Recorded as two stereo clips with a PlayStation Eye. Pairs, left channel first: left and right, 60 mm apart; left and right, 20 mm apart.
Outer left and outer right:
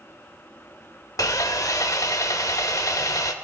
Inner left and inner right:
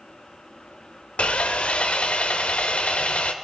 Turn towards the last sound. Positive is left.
turn(degrees=70)  # may be behind; listen again after turning